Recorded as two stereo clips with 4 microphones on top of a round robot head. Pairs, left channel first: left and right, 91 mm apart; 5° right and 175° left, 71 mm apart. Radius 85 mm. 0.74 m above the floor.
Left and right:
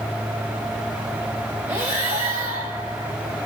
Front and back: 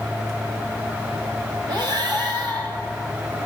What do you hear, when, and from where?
1.7 s breathing: 155° right, 3 m